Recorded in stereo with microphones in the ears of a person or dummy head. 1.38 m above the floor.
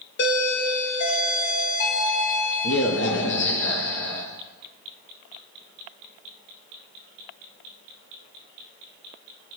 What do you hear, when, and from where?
0.2 s a doorbell: 55° left (ahead or behind), 0.9 m